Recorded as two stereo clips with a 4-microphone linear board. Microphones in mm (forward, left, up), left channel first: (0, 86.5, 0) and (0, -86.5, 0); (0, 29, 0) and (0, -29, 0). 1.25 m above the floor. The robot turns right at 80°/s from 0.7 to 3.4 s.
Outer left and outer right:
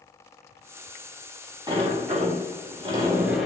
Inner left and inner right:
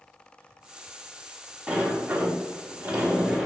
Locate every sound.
1.7 s a sliding door: 145° right, 0.8 m; by 3.5 s 5° right, 0.8 m